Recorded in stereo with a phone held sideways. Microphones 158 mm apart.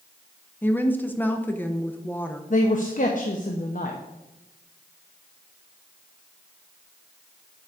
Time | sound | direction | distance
0.6 | a woman speaking | 10° left (ahead or behind) | 0.5 m
2.5 | a man speaking | 55° left (ahead or behind) | 0.6 m